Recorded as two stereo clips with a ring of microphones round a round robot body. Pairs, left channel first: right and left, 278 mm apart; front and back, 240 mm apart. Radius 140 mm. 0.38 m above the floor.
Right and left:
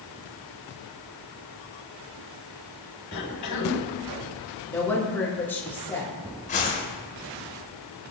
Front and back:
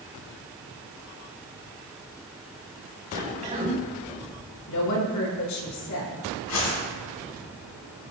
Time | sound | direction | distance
3.1 | a cough | 115° right | 6 m
4.7 | a woman speaking | 5° right | 4 m
6.5 | a whoosh | 25° right | 4 m